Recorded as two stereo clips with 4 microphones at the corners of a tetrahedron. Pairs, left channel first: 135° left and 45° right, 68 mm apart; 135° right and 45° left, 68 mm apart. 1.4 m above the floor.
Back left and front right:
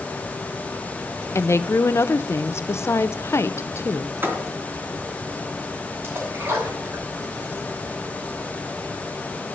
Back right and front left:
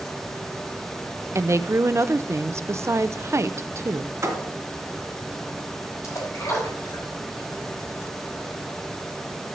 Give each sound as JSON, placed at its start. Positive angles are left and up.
{"t": 1.4, "sound": "a woman speaking", "azimuth_deg": 90, "distance_m": 0.6}
{"t": 4.2, "sound": "a thud", "azimuth_deg": 10, "distance_m": 2.5}
{"t": 6.0, "sound": "a splash", "azimuth_deg": -95, "distance_m": 5.0}